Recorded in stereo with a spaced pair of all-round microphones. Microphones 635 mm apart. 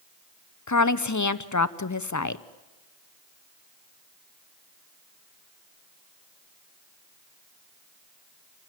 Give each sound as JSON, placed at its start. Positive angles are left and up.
{"t": 0.7, "sound": "a woman speaking", "side_deg": 30, "distance_m": 0.7}